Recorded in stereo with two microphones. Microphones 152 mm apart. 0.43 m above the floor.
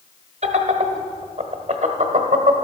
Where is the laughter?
50° right (ahead or behind), 1.2 m.